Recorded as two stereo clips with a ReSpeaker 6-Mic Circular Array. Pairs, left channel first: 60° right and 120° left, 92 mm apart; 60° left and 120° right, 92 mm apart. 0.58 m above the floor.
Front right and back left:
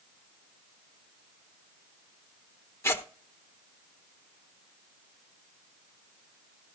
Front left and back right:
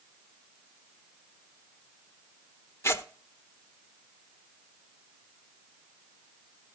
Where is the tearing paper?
Straight ahead, 0.9 m.